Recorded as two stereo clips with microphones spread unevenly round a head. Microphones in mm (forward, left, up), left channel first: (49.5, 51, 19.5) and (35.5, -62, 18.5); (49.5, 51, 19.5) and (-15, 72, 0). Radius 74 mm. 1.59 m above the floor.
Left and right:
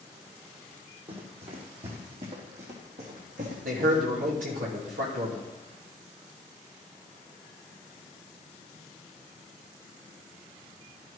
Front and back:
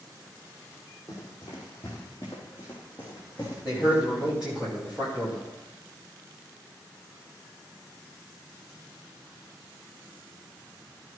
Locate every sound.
1.1 s running footsteps: 70° right, 3 m; by 4.4 s 95° right, 4.5 m
3.6 s a man speaking: 115° right, 3.5 m